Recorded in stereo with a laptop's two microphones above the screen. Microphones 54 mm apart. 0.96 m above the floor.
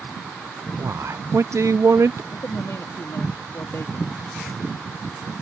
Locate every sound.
0.8 s a man speaking: 60° right (ahead or behind)
2.3 s a man speaking: 60° left (ahead or behind)